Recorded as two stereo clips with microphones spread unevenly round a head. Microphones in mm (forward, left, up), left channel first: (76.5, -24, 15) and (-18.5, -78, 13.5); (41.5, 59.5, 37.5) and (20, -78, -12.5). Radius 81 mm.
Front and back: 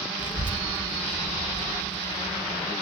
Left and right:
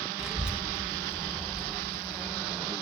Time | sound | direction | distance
0.2 | a child speaking | 5° left | 0.8 m